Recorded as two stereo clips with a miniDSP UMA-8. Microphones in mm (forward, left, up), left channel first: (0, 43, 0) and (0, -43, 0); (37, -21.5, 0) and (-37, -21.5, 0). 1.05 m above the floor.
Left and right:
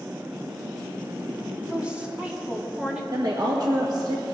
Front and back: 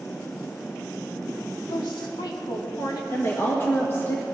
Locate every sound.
1.7 s a woman speaking: 10° right, 2 m
3.1 s a woman speaking: 55° right, 1.4 m